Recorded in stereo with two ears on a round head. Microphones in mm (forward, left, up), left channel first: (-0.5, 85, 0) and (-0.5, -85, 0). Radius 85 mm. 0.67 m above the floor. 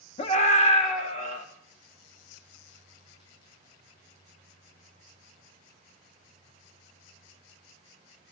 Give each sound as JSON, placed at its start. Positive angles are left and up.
{"t": 0.2, "sound": "a scream", "side_deg": 30, "distance_m": 1.1}